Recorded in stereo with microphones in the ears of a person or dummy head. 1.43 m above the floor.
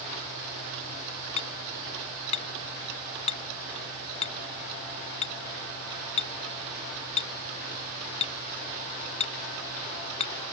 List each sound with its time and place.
1.4 s hammering: 35° left (ahead or behind)